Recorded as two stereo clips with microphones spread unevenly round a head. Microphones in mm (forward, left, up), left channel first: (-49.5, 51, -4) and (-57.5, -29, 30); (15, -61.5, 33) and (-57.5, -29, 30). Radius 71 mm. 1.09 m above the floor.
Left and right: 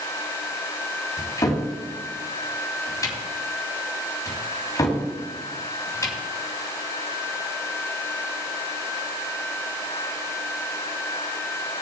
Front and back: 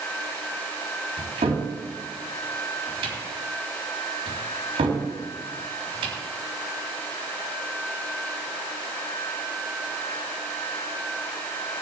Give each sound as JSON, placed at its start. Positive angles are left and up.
{"t": 1.2, "sound": "a cupboard door", "azimuth_deg": 135, "distance_m": 3.5}